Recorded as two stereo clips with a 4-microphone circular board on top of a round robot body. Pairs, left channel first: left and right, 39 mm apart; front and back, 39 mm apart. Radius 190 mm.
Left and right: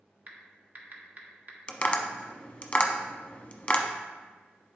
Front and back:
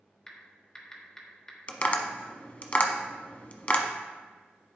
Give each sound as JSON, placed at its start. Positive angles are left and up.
{"t": 0.3, "sound": "typing on a keyboard", "azimuth_deg": -65, "distance_m": 1.6}
{"t": 1.7, "sound": "tapping", "azimuth_deg": 40, "distance_m": 1.1}